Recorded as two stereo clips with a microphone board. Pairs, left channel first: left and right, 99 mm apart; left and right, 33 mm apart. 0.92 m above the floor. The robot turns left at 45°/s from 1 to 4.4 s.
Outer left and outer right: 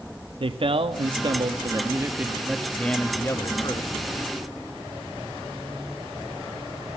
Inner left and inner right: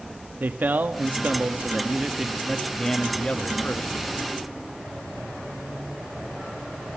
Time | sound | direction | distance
0.4 | a man speaking | 105° right | 1.5 m